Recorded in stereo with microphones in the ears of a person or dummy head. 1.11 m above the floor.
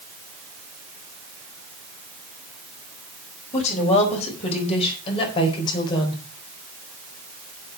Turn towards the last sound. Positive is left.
turn(degrees=25)  # may be behind; listen again after turning